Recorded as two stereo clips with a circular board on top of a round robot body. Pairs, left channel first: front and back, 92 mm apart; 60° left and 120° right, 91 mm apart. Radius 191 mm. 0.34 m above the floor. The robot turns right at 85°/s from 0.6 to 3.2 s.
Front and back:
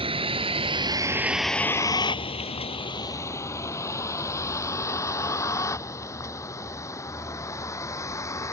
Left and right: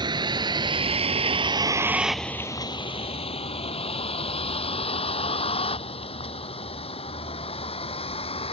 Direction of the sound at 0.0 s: 160° right.